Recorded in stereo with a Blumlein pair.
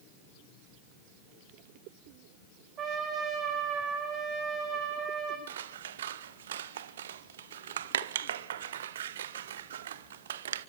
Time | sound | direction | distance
2.8 | a trumpet | 30° right | 5 m
5.5 | scissors | 60° right | 0.7 m